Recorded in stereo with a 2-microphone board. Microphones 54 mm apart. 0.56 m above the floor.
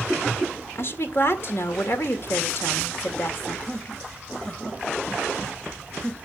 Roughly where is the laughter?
Centre.